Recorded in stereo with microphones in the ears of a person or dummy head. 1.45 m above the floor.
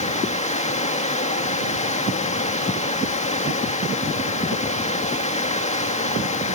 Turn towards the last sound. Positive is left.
turn(degrees=30)  # may be behind; listen again after turning